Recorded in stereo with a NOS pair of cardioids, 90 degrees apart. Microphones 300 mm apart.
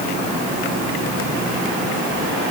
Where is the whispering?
No whispering in this recording.